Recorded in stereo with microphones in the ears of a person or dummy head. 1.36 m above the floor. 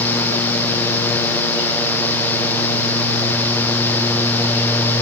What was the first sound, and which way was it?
Only background noise.